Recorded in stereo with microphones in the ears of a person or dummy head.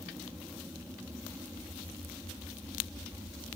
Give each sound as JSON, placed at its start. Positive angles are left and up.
{"t": 0.0, "sound": "an aircraft", "side_deg": -10}